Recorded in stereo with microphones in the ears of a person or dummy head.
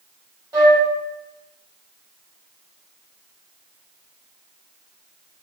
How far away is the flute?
About 1.6 m.